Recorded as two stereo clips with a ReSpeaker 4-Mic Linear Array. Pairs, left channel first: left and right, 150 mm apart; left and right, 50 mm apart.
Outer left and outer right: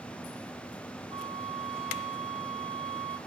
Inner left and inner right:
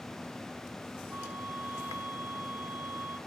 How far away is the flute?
About 1.4 m.